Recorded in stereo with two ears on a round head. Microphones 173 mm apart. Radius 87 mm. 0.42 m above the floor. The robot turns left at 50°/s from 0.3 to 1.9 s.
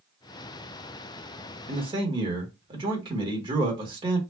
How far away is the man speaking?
About 1.1 m.